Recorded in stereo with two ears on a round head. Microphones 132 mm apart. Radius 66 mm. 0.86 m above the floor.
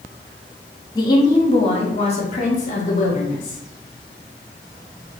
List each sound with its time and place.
0.9 s a woman speaking: 30° left (ahead or behind), 1.0 m; by 3.6 s 65° left (ahead or behind), 2 m